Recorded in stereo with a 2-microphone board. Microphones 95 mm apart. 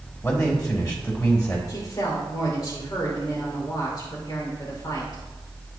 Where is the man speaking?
35° left (ahead or behind), 3 m.